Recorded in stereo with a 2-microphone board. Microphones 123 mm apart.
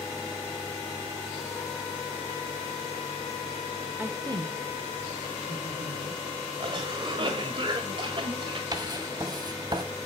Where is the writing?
35° right (ahead or behind), 1.6 m.